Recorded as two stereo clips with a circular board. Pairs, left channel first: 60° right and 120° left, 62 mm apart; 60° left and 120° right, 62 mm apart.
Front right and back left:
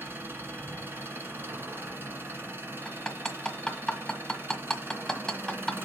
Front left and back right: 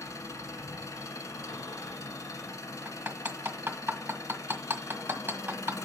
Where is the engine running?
75° left, 1.7 m.